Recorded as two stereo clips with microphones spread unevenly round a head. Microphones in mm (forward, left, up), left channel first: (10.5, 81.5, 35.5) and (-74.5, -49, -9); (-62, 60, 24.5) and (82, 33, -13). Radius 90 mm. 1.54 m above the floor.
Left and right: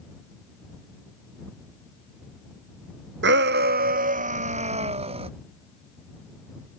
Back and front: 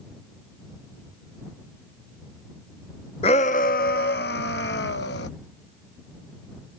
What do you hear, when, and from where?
3.2 s a shout: 135° right; by 5.3 s straight behind